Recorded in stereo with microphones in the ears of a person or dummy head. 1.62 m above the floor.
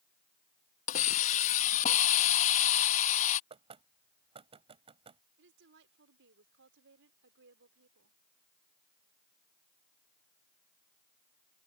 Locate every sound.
0.9 s a hiss: 45° left (ahead or behind)
3.5 s knocking: 30° right (ahead or behind)
5.4 s a woman speaking: 70° right (ahead or behind)